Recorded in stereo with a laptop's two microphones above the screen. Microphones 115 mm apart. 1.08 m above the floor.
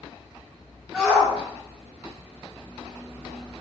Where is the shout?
10° right (ahead or behind), 3.5 m; by 3.6 s 10° left (ahead or behind), 0.6 m.